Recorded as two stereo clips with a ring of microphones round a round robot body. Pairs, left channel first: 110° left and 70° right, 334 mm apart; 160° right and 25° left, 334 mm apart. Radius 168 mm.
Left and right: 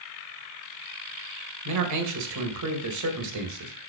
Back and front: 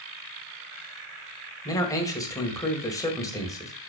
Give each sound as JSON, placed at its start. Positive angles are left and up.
{"t": 1.6, "sound": "a man speaking", "azimuth_deg": -80, "distance_m": 1.8}